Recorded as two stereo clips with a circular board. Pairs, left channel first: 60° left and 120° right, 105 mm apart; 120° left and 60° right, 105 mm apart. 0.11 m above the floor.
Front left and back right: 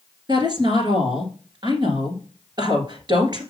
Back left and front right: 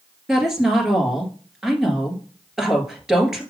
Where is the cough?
No cough in this recording.